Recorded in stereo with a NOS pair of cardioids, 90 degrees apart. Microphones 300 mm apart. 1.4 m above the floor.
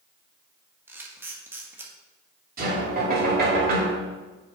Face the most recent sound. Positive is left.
turn(degrees=-30)